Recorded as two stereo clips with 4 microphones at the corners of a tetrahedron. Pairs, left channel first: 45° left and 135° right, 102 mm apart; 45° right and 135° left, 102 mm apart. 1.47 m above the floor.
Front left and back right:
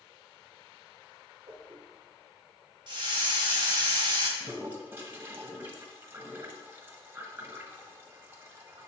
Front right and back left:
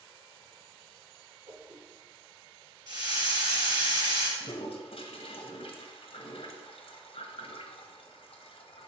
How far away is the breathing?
No breathing in this recording.